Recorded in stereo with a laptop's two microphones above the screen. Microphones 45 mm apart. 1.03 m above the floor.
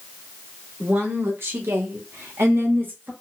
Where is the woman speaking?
55° right (ahead or behind), 1.9 m; by 3.1 s 45° right (ahead or behind), 1.0 m.